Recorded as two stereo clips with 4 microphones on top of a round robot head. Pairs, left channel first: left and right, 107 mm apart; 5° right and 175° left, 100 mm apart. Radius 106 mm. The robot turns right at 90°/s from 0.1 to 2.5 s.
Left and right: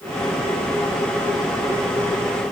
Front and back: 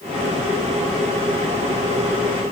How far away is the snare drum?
I don't hear a snare drum.